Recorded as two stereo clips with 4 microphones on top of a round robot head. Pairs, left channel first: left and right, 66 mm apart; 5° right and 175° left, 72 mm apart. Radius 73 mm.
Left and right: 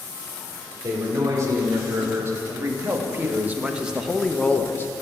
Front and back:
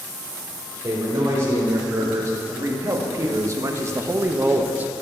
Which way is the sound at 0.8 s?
125° right.